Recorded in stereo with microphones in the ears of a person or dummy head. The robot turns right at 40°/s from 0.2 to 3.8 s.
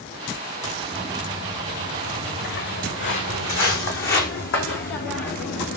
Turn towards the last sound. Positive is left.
turn(degrees=65)  # may be behind; listen again after turning